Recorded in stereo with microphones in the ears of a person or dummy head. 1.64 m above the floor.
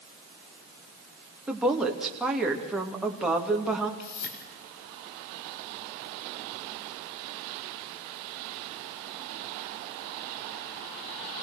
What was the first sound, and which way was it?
A woman speaking, centre (ahead or behind).